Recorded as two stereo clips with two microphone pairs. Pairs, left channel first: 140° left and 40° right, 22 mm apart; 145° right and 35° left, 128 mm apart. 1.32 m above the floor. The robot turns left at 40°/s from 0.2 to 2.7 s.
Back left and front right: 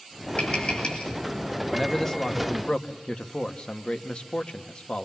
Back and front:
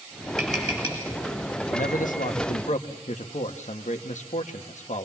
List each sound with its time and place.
0.4 s tapping: 125° left, 9.5 m; by 1.1 s 100° left, 9.5 m
1.7 s a man speaking: 130° right, 1.6 m; by 5.0 s 170° right, 1.6 m